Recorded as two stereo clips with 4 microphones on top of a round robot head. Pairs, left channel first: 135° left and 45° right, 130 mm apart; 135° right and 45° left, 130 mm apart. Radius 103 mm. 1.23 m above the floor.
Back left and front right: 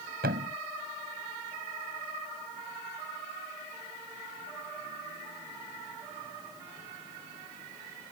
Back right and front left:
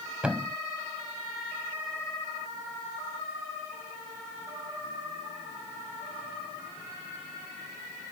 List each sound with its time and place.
0.2 s a thud: 40° right